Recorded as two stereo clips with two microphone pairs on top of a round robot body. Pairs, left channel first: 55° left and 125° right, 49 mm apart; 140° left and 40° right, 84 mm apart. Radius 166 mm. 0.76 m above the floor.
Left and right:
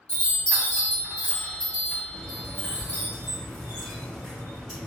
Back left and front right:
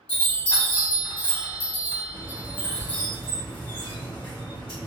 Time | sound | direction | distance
0.1 | a chime | 130° left | 1.3 m
2.1 | a squeak | 155° left | 0.9 m